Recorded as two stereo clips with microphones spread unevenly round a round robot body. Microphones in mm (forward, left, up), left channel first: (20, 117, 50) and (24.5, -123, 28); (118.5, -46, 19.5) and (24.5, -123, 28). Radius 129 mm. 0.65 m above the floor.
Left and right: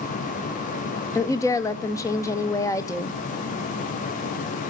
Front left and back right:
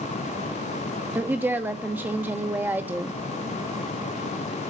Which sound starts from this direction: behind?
A woman speaking, at 1.1 s.